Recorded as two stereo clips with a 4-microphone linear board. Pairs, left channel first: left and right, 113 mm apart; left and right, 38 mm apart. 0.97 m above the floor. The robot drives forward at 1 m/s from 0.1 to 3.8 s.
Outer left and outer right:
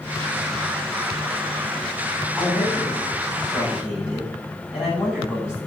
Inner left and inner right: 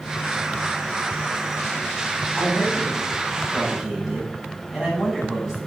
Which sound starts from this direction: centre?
A man speaking, at 2.4 s.